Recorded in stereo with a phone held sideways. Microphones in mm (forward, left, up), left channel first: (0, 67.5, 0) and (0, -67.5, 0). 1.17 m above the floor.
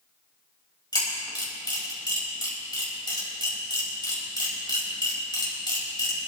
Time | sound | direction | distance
0.9 | a camera shutter | 35° left (ahead or behind) | 4.5 m